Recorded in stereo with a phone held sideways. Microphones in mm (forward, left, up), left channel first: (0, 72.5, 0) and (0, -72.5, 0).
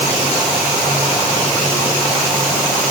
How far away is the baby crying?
I don't hear a baby crying.